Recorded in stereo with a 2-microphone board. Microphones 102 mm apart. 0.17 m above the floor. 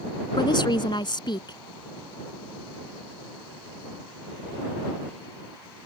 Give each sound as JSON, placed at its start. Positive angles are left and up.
{"t": 0.4, "sound": "a woman speaking", "side_deg": 50}